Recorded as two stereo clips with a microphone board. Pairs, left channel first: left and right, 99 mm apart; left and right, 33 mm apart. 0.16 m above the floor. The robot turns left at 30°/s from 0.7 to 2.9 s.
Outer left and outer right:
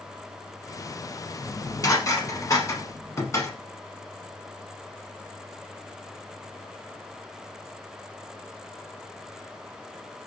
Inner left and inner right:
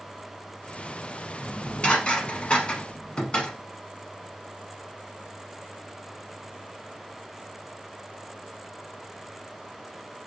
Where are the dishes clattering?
35° left (ahead or behind), 0.9 m.